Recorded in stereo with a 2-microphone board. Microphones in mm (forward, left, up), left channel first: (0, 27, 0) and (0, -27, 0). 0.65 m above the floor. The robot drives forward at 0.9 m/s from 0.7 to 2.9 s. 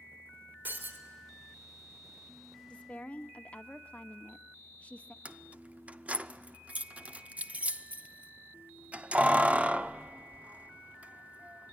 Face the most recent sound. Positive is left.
turn(degrees=-25)  # may be behind; listen again after turning